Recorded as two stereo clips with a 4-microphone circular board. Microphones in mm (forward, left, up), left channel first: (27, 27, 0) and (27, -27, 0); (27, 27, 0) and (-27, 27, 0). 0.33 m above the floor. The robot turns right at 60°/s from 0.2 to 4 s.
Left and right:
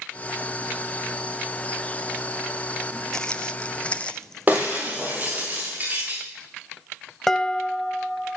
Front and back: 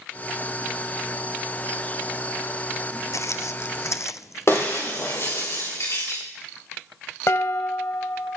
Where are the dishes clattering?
5° left, 1.1 m.